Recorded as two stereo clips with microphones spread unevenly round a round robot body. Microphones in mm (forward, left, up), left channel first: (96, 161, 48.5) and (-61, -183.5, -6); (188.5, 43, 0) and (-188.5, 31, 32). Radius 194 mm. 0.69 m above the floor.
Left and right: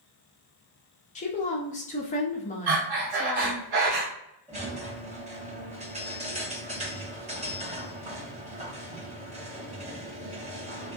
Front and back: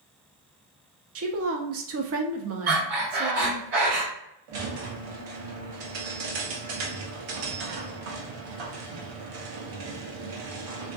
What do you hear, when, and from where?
1.1 s a woman speaking: 140° left, 0.6 m
2.7 s breathing: 140° right, 1.2 m
4.5 s a squeak: straight behind, 0.8 m